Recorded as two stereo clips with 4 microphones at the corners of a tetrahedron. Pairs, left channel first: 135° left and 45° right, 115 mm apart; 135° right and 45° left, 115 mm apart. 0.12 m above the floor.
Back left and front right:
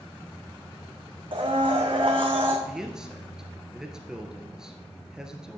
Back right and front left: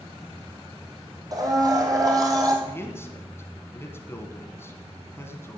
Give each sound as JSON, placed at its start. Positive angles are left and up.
{"t": 1.3, "sound": "a blender", "azimuth_deg": -10, "distance_m": 2.0}
{"t": 2.6, "sound": "a man speaking", "azimuth_deg": -120, "distance_m": 1.4}